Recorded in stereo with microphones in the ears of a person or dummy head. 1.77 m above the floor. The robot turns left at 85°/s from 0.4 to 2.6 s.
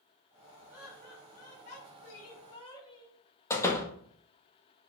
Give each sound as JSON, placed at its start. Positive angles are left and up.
{"t": 0.7, "sound": "laughter", "azimuth_deg": -170, "distance_m": 4.5}
{"t": 3.5, "sound": "a door slam", "side_deg": 15, "distance_m": 1.7}